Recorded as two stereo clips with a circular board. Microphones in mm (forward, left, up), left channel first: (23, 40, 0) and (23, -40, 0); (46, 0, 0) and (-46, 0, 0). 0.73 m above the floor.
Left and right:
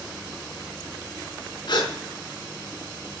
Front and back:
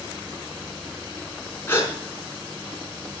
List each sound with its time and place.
1.7 s a gasp: 65° left, 4.5 m